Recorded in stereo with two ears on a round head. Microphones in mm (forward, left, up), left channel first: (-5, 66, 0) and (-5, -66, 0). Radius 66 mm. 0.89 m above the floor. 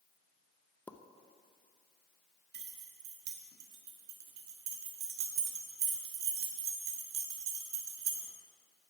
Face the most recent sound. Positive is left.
turn(degrees=-75)  # may be behind; listen again after turning